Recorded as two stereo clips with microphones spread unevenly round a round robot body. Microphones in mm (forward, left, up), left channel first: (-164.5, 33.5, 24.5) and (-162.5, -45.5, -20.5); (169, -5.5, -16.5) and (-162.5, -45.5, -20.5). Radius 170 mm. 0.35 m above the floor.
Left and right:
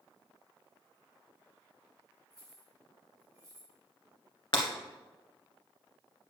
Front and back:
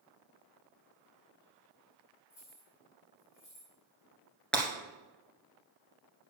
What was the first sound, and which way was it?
Keys jangling, 50° right.